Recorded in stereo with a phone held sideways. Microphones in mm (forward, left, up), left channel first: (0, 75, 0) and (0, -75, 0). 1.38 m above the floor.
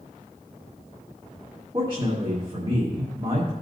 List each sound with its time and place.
1.7 s a man speaking: 35° right (ahead or behind), 1.6 m